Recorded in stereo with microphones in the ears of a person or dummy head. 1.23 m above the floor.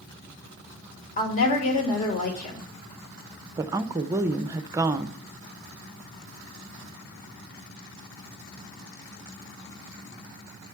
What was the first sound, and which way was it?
A woman speaking, 35° left (ahead or behind).